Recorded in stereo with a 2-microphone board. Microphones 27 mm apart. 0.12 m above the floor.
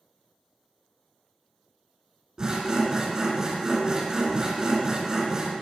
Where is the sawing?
20° right (ahead or behind), 1.7 m.